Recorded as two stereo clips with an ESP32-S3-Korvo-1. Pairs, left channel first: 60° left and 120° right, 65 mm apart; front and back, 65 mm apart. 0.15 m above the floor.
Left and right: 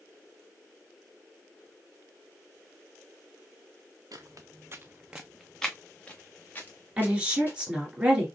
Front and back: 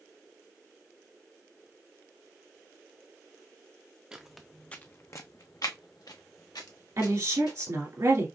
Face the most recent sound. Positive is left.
turn(degrees=170)